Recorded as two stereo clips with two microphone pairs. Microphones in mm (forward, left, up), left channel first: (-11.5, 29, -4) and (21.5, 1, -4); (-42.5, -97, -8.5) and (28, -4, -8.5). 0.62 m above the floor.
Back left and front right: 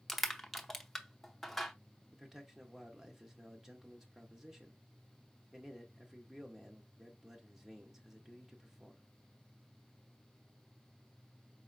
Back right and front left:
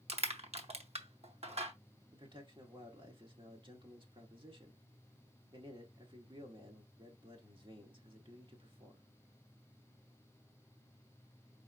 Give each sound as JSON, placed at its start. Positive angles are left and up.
{"t": 0.1, "sound": "crushing", "azimuth_deg": 55, "distance_m": 0.7}
{"t": 2.1, "sound": "a man speaking", "azimuth_deg": 35, "distance_m": 1.3}